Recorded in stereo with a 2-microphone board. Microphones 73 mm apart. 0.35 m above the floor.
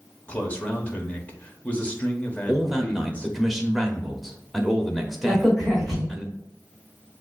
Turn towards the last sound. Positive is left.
turn(degrees=0)  # may be behind; listen again after turning